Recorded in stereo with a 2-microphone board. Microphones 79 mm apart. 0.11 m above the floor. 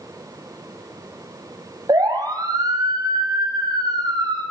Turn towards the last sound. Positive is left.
turn(degrees=-60)  # may be behind; listen again after turning